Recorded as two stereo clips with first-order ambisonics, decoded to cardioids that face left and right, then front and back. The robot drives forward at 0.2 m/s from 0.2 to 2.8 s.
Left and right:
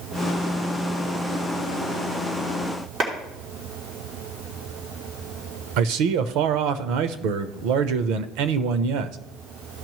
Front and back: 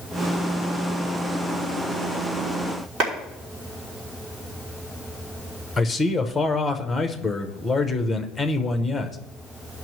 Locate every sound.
3.0 s a clap: 145° right, 3 m
5.8 s a man speaking: 85° right, 0.7 m